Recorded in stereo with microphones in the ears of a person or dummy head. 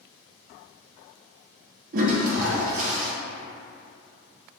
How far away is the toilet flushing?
About 0.7 m.